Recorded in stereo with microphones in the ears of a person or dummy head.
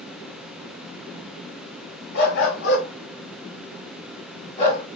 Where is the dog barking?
65° left (ahead or behind), 2.5 m; by 4.9 s 30° left (ahead or behind), 2.5 m.